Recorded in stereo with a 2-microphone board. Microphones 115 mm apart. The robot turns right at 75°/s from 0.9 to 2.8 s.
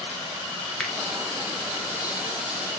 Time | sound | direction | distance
0.8 | a finger snap | centre (ahead or behind) | 0.9 m